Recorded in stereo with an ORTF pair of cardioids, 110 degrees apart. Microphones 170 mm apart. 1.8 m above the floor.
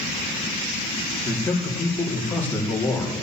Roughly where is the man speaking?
Ahead.